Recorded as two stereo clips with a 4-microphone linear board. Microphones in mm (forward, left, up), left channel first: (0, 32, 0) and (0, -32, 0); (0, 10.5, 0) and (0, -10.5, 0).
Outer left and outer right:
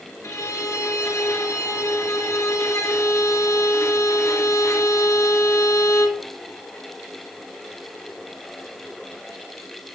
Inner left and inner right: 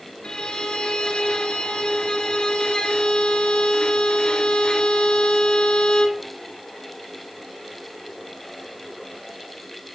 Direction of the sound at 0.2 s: 50° left (ahead or behind).